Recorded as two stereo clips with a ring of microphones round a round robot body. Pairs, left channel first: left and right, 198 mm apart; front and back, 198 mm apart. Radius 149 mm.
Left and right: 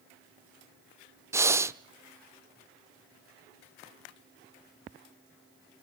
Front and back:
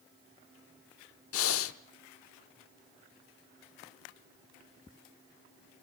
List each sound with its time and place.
1.3 s breathing: 10° right, 0.7 m